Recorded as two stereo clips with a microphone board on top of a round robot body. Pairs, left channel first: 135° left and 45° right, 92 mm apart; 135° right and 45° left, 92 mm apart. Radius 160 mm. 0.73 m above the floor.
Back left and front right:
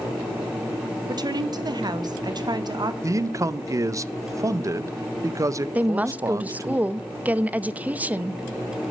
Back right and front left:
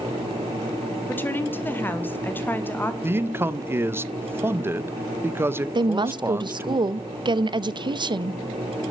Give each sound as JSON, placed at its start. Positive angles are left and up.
{"t": 1.1, "sound": "a woman speaking", "azimuth_deg": -70, "distance_m": 1.6}
{"t": 3.0, "sound": "a man speaking", "azimuth_deg": -10, "distance_m": 0.7}
{"t": 5.8, "sound": "a woman speaking", "azimuth_deg": 25, "distance_m": 0.8}